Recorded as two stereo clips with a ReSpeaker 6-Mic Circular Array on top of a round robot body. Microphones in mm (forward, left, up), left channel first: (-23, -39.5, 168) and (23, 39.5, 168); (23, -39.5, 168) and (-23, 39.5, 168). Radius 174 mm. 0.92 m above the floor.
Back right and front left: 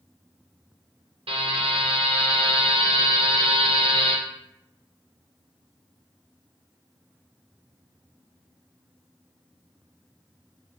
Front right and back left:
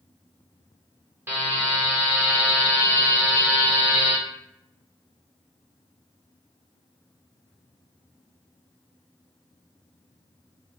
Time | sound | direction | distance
1.3 | a buzzer | 55° left | 0.8 m